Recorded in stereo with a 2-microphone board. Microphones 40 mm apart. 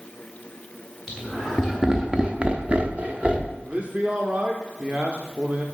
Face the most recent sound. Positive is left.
turn(degrees=-30)  # may be behind; listen again after turning